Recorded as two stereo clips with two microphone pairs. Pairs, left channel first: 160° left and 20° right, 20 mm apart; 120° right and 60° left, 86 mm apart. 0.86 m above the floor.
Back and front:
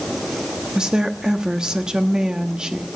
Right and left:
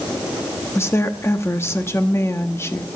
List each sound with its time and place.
0.8 s a woman speaking: 65° right, 1.2 m